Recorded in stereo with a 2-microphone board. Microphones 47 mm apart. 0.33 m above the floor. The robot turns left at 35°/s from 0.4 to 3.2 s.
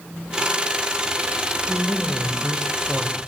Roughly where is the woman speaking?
Right.